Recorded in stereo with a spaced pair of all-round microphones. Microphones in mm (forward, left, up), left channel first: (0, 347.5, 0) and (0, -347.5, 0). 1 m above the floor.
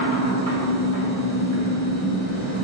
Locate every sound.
0.0 s a machine running: 25° left (ahead or behind), 1.8 m